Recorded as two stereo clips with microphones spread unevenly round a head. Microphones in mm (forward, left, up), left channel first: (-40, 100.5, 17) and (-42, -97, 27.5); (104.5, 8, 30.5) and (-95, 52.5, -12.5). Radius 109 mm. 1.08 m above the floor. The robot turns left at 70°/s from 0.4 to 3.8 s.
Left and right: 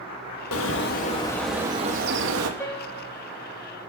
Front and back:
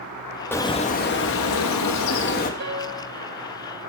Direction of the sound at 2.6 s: 165° left.